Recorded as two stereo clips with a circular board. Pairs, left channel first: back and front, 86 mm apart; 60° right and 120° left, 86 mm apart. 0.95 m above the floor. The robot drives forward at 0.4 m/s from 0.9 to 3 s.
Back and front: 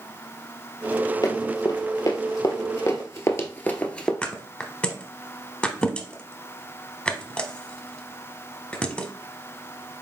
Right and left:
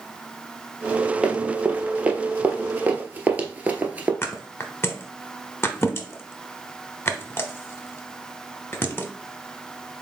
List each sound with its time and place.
1.2 s running footsteps: 170° right, 1.3 m; by 4.1 s 125° left, 0.9 m
4.2 s a thud: 110° right, 0.8 m